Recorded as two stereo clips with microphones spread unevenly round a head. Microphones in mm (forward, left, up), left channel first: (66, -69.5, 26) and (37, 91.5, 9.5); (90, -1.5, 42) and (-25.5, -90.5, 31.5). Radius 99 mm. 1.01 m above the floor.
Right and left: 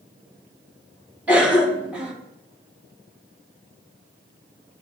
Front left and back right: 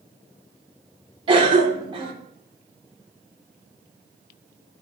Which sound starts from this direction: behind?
A cough, at 1.3 s.